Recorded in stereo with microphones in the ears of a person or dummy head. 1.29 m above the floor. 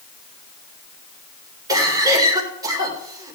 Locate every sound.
1.7 s a cough: 20° right (ahead or behind), 4.5 m